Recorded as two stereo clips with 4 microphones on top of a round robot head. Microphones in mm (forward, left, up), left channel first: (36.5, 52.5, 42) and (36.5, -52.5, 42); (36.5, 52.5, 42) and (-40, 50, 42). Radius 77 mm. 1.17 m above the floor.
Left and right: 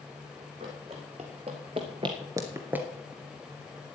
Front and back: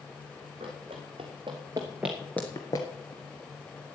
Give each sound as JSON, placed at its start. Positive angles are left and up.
{"t": 0.6, "sound": "running footsteps", "azimuth_deg": -140, "distance_m": 2.5}